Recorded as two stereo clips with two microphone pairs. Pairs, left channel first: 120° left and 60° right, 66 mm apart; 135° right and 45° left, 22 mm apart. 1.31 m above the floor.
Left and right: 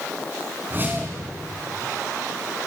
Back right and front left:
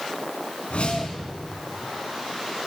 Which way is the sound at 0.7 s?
115° right.